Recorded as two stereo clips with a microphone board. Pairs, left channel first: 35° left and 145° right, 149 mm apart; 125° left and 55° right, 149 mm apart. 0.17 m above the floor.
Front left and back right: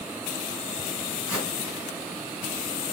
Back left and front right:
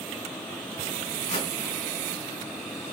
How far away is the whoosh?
About 2.5 m.